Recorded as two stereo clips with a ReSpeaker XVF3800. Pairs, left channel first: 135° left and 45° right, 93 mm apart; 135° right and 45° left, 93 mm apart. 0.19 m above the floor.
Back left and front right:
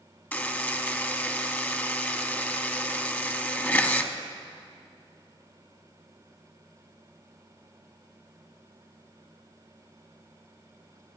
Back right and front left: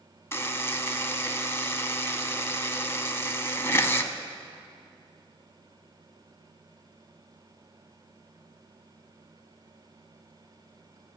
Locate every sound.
0.3 s a buzzer: 170° right, 0.8 m